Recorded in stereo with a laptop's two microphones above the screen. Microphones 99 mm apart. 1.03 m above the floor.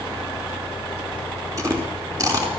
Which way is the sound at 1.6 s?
35° right (ahead or behind).